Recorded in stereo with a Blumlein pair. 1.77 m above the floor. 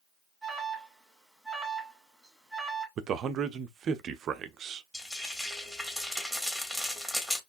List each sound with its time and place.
0.4 s an alarm: straight ahead, 2.0 m
3.0 s a man speaking: 30° right, 0.6 m
4.9 s frying: 10° left, 1.9 m